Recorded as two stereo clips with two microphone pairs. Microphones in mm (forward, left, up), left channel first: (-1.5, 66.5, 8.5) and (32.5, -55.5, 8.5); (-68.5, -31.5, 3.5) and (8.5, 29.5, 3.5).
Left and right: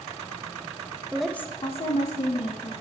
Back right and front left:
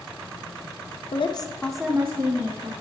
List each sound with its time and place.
1.1 s a woman speaking: 155° right, 0.8 m; by 2.7 s 85° left, 1.7 m